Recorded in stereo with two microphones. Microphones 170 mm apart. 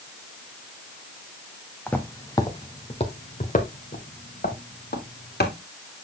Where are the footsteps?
10° left (ahead or behind), 1.3 m; by 5.5 s 70° left (ahead or behind), 2.5 m.